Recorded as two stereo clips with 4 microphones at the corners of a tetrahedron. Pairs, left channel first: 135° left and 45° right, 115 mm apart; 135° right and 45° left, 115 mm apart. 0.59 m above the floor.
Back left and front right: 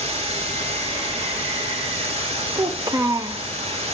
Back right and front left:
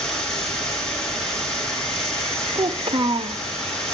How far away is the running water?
About 6.5 m.